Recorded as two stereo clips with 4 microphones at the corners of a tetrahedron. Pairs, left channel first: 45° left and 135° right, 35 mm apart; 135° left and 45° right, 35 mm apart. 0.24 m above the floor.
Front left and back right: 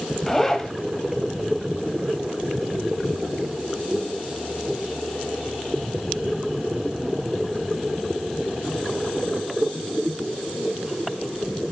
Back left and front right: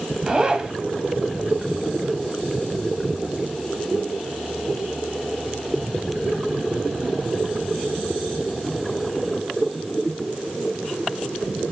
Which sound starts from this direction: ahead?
A zipper, at 0.3 s.